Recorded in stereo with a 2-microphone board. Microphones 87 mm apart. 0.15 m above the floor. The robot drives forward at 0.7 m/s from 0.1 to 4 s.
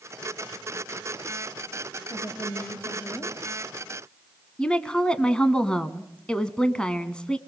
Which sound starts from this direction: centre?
A woman speaking, at 4.6 s.